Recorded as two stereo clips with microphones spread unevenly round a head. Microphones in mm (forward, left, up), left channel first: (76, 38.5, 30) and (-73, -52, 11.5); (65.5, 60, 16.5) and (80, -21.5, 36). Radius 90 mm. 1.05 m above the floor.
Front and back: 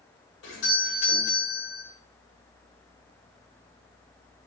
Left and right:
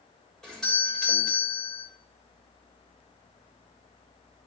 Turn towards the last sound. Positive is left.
turn(degrees=20)